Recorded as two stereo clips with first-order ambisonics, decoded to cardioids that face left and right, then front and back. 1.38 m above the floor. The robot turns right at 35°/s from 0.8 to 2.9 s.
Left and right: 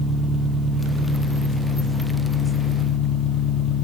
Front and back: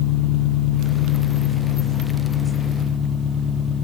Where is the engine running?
5° right, 1.0 m; by 3.9 s 65° left, 1.0 m.